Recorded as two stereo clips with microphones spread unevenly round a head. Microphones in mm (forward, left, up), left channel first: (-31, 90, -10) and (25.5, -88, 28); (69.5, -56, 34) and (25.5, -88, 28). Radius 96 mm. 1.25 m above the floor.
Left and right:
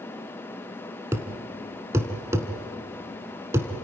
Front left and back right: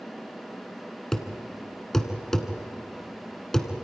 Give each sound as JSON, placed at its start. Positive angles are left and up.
{"t": 1.1, "sound": "a thud", "azimuth_deg": -30, "distance_m": 1.3}